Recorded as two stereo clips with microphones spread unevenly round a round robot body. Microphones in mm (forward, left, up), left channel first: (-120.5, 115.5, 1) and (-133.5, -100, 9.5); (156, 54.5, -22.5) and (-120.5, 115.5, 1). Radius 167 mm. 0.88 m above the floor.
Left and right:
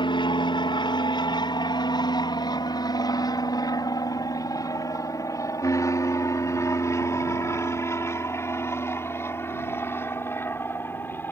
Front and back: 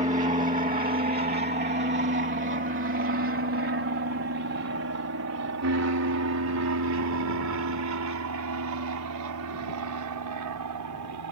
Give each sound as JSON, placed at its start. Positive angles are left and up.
{"t": 0.0, "sound": "an aircraft", "azimuth_deg": 125}